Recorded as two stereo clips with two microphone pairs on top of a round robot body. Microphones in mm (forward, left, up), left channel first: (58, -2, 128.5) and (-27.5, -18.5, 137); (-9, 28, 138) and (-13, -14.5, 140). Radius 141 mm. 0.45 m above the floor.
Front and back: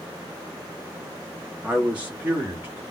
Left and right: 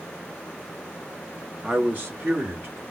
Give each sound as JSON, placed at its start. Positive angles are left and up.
{"t": 1.6, "sound": "a man speaking", "azimuth_deg": -95, "distance_m": 1.2}